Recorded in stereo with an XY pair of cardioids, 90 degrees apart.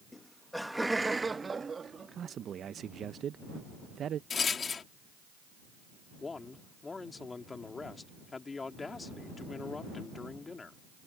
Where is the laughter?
20° left; by 2.6 s 55° right.